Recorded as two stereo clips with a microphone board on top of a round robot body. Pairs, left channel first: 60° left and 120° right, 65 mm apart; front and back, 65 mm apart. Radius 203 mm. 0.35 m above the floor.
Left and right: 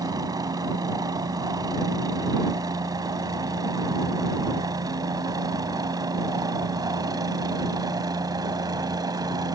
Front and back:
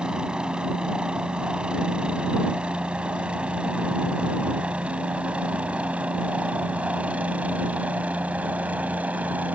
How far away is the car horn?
I don't hear a car horn.